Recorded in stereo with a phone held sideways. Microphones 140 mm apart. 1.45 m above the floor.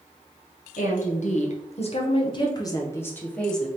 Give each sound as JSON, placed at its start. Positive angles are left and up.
{"t": 0.8, "sound": "a woman speaking", "side_deg": 65, "distance_m": 1.4}